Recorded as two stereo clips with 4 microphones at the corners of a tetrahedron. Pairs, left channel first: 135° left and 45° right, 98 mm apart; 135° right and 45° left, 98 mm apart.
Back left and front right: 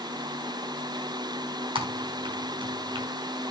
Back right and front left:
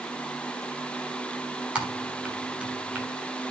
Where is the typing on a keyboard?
30° right, 3 m.